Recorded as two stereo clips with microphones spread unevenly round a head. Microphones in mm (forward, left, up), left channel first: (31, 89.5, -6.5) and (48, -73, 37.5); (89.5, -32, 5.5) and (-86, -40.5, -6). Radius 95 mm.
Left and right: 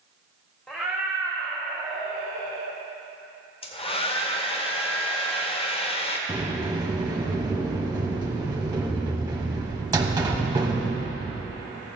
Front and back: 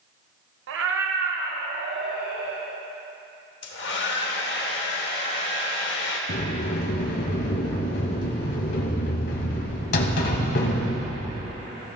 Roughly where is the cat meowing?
Behind.